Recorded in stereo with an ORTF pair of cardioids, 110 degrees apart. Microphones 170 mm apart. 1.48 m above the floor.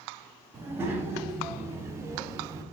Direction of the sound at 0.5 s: 15° right.